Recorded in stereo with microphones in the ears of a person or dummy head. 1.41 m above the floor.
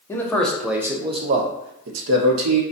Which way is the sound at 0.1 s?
10° left (ahead or behind).